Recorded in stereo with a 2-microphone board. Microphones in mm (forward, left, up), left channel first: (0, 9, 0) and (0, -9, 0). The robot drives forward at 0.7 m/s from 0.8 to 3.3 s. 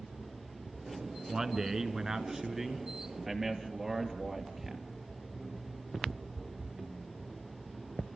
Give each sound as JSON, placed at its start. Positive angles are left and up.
{"t": 1.3, "sound": "a man speaking", "side_deg": -35, "distance_m": 1.4}